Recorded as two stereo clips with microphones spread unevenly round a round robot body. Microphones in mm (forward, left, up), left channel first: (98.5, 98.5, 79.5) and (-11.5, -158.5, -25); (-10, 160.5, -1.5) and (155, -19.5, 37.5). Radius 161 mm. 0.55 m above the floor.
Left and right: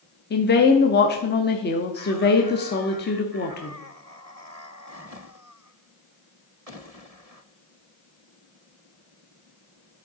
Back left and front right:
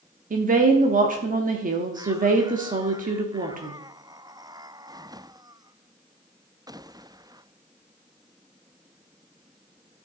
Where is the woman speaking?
Straight ahead, 0.9 m.